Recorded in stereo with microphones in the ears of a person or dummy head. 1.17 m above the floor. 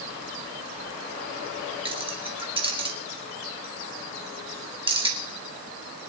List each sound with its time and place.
1.9 s keys jangling: 25° right (ahead or behind), 1.2 m